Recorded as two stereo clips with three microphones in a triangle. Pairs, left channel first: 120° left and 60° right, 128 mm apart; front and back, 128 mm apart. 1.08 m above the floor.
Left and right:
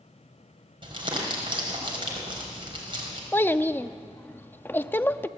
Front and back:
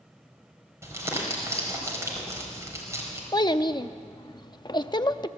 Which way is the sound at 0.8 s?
110° right.